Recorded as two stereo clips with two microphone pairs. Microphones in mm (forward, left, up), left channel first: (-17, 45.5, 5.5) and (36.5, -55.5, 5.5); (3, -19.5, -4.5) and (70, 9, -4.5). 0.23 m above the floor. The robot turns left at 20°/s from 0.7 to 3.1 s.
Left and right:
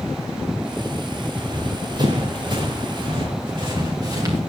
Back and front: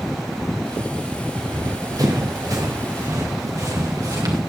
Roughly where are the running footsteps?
Ahead.